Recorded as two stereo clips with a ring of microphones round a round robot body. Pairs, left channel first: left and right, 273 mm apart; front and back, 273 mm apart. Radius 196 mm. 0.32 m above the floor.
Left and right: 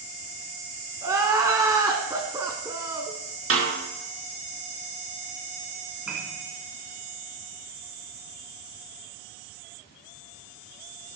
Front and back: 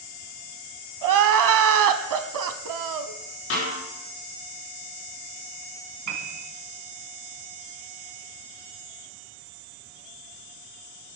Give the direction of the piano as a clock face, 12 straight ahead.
6 o'clock.